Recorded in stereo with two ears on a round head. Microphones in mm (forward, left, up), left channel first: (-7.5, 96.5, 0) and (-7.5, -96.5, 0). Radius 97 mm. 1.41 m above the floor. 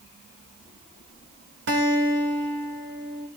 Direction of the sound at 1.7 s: 55° right (ahead or behind).